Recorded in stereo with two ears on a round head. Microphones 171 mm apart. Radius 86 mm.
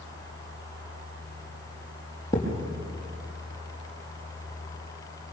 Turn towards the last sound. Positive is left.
turn(degrees=15)  # may be behind; listen again after turning